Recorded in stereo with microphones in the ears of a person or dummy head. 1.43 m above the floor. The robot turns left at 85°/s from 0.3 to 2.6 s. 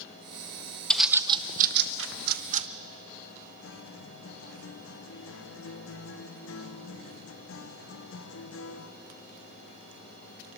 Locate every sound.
0.9 s a bird: 5° left (ahead or behind), 0.7 m; by 2.7 s 35° right (ahead or behind), 0.7 m
3.6 s a guitar: 80° left, 0.8 m